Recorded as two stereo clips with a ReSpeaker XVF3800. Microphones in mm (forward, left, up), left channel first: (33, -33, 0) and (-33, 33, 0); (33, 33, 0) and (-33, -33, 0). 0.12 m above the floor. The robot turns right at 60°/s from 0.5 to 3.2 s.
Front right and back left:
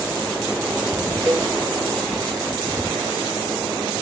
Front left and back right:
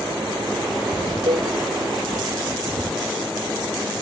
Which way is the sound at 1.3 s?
160° right.